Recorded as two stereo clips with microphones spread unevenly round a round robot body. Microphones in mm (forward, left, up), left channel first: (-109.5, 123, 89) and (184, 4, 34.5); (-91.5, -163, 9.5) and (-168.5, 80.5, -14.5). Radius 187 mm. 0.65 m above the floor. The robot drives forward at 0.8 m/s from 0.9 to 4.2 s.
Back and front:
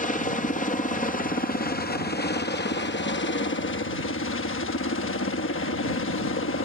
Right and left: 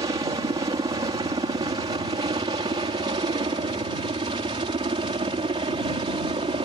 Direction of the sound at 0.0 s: 120° left.